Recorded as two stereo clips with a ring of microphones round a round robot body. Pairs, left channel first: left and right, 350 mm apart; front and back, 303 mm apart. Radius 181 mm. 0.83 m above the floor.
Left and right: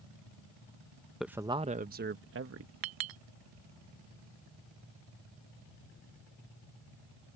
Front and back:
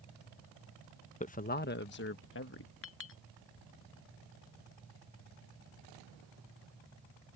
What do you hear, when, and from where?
1.2 s a man speaking: straight ahead; by 2.7 s 45° right
2.8 s a clink: 55° right